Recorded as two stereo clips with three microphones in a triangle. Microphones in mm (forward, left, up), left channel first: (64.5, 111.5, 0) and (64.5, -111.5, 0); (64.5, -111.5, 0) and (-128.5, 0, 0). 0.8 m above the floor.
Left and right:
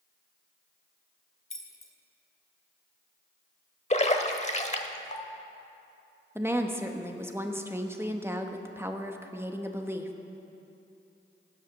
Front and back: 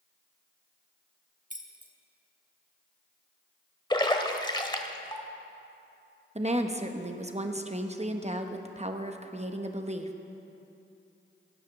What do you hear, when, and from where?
1.5 s keys jangling: 100° left, 1.2 m
3.9 s a splash: 35° left, 0.9 m
6.3 s a woman speaking: 165° right, 0.8 m